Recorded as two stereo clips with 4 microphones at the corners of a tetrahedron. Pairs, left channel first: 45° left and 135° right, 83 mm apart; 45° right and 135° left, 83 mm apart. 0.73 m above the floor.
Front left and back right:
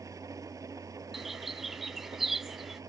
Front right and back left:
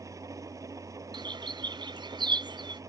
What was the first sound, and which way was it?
An engine running, straight behind.